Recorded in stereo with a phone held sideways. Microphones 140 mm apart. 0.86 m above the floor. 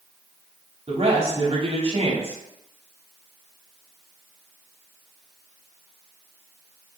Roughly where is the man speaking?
Right.